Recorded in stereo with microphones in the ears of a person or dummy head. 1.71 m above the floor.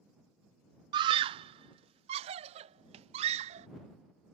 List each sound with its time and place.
0.9 s a scream: 30° right (ahead or behind); by 3.7 s 40° right (ahead or behind)